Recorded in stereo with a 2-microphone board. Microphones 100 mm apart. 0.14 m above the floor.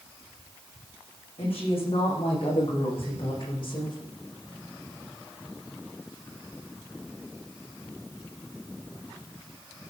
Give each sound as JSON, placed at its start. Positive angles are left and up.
{"t": 1.4, "sound": "a woman speaking", "side_deg": 70, "distance_m": 9.0}